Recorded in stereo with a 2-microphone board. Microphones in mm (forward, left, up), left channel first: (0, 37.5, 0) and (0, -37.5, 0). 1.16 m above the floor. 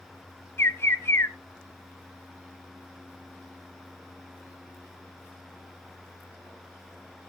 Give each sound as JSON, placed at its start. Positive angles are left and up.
{"t": 0.6, "sound": "a bird", "side_deg": 35, "distance_m": 0.9}